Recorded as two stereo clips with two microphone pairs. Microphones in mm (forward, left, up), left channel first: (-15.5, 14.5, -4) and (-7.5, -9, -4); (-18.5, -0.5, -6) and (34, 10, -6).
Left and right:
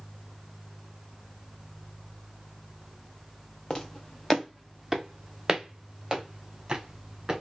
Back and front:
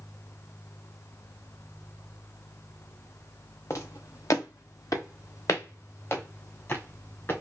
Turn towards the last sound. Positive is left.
turn(degrees=-130)